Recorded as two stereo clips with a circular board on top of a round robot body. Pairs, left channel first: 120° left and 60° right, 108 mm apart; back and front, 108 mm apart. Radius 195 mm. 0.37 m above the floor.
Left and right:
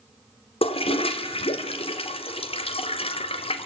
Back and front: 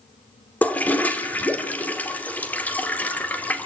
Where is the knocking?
No knocking in this recording.